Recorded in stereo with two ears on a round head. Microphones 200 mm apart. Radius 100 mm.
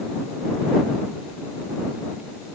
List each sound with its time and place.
Only background noise.